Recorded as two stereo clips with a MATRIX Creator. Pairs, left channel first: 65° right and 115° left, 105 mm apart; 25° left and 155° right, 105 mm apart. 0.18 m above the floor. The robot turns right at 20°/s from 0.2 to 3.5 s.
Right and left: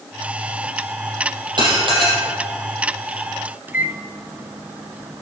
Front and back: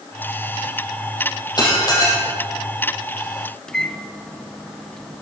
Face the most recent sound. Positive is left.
turn(degrees=90)